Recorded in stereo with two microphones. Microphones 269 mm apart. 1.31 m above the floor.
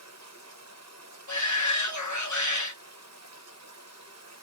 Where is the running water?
65° right (ahead or behind), 0.8 m.